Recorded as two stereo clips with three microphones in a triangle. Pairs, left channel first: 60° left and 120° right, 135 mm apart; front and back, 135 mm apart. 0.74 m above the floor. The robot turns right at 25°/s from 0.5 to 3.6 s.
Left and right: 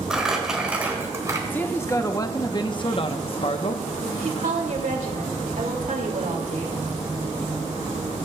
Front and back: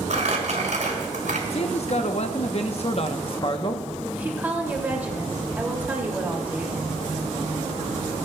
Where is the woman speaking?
105° right, 2.5 m.